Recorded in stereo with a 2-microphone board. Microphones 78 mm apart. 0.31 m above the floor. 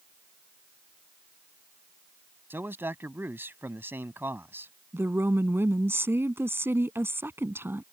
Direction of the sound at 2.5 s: 30° right (ahead or behind).